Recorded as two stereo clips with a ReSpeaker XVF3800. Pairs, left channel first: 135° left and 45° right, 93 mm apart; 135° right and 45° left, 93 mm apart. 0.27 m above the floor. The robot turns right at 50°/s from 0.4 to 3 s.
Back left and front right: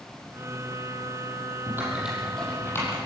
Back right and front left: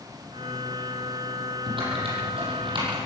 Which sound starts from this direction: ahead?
Typing on a keyboard, at 1.7 s.